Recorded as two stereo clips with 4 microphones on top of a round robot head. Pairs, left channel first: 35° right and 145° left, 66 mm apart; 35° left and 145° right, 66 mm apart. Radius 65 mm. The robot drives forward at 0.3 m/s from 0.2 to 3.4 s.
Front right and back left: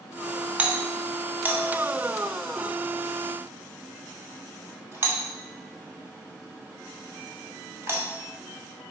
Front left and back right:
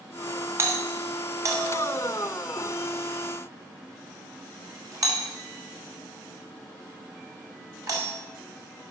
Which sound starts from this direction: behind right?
A doorbell, at 0.6 s.